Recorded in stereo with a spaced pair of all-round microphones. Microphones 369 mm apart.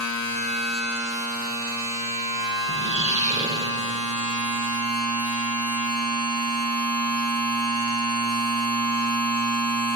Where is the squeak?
20° right (ahead or behind), 0.6 m.